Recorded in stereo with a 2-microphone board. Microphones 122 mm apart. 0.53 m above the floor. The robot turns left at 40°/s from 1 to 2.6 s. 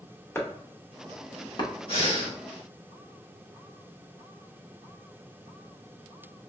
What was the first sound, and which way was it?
Chopping, 20° left (ahead or behind).